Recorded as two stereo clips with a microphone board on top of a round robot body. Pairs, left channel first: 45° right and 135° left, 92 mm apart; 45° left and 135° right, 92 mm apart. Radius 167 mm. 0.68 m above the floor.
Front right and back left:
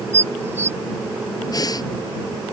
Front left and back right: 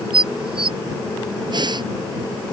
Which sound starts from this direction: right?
Breathing, at 1.5 s.